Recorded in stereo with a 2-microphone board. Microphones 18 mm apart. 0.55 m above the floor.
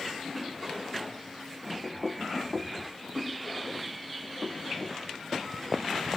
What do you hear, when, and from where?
1.8 s knocking: 25° right (ahead or behind)